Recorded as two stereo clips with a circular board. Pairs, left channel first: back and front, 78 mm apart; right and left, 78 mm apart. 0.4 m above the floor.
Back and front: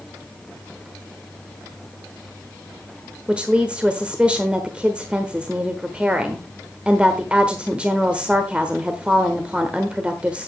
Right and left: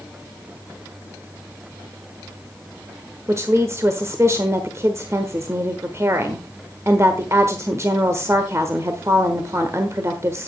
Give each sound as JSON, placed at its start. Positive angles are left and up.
{"t": 3.3, "sound": "a woman speaking", "azimuth_deg": 65, "distance_m": 1.1}